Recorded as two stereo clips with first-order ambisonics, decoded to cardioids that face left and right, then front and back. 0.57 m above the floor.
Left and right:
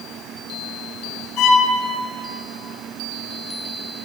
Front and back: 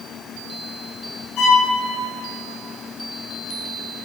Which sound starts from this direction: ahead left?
A violin, at 1.4 s.